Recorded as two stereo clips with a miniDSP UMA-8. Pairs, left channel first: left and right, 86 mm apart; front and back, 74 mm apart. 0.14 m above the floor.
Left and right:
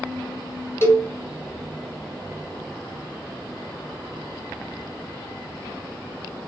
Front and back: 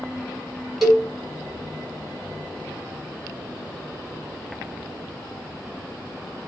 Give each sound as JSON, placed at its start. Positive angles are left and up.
{"t": 0.8, "sound": "a cowbell", "azimuth_deg": 90, "distance_m": 1.6}